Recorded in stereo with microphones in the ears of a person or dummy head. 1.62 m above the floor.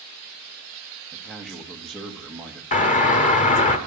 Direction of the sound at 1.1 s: Centre (ahead or behind).